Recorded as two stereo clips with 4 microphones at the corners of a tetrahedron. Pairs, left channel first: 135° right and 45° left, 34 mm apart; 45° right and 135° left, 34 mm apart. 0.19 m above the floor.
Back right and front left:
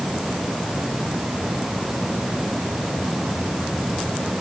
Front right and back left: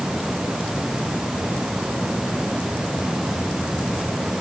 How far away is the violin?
No violin in this recording.